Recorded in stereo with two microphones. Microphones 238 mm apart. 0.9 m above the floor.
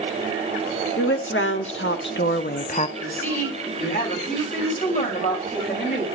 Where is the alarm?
No alarm in this recording.